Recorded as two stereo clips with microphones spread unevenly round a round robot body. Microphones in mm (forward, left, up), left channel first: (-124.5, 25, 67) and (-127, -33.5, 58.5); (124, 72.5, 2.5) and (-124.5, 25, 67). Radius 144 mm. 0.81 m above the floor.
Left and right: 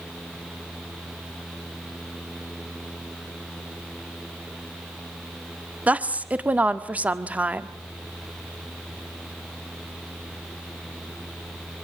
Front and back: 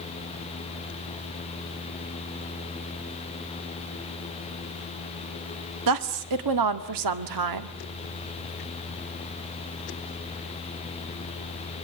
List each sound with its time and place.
5.9 s a woman speaking: 155° right, 1.8 m